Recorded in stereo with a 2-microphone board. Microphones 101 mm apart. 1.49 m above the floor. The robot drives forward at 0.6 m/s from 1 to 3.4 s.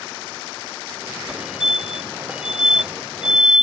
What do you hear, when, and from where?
1.3 s a fire alarm: 5° right (ahead or behind)